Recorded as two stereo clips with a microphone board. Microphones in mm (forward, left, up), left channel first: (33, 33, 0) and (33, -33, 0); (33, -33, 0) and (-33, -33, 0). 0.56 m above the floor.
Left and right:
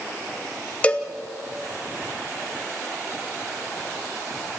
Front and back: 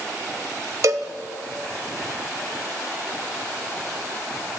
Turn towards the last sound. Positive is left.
turn(degrees=155)